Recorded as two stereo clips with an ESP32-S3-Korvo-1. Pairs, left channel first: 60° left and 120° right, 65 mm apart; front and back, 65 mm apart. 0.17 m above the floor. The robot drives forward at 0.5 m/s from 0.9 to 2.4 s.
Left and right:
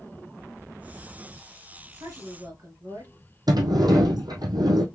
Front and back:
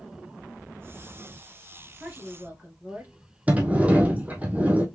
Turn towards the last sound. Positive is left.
turn(degrees=-110)